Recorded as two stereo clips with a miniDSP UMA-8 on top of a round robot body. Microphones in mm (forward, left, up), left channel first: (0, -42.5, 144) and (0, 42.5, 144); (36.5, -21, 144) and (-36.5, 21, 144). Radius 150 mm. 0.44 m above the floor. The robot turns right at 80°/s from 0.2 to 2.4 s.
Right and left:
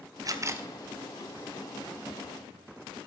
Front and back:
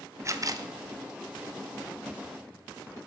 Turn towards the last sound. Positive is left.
turn(degrees=-75)